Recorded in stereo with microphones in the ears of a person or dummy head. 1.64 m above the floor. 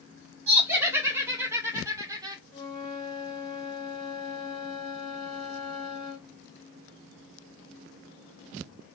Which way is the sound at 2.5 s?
25° left (ahead or behind).